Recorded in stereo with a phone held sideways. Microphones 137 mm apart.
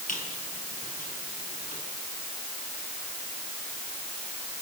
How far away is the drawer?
I don't hear a drawer.